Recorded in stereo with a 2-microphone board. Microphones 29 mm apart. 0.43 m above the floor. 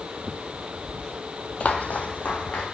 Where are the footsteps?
50° left (ahead or behind), 0.6 m; by 2.6 s 70° left (ahead or behind), 1.8 m.